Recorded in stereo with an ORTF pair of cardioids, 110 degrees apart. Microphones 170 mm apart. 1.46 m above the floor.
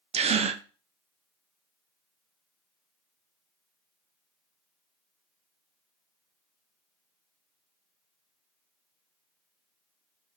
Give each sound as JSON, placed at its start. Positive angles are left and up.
{"t": 0.1, "sound": "a gasp", "azimuth_deg": -35, "distance_m": 0.8}